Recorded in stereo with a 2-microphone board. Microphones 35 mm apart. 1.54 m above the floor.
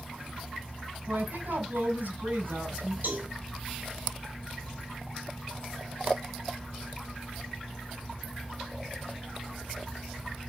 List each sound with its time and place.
1.1 s a woman speaking: 70° right (ahead or behind), 6 m
3.0 s a cowbell: 60° right (ahead or behind), 7 m